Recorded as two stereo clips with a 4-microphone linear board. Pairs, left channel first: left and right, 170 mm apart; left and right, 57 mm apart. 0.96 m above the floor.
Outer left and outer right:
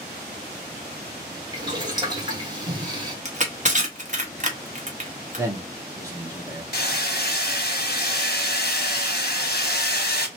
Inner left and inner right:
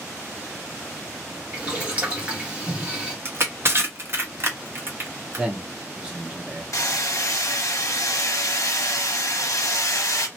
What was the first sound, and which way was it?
Boiling, 25° right (ahead or behind).